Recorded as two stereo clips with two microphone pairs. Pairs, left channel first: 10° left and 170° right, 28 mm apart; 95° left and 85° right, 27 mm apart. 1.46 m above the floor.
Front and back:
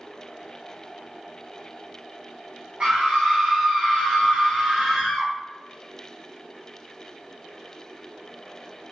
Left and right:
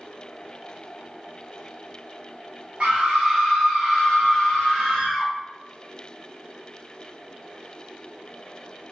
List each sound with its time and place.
2.8 s a scream: 125° right, 0.7 m; by 5.3 s 150° left, 1.5 m